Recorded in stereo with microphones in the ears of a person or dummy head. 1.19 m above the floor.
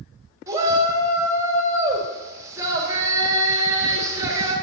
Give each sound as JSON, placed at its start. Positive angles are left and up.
{"t": 0.5, "sound": "a shout", "side_deg": -20, "distance_m": 2.0}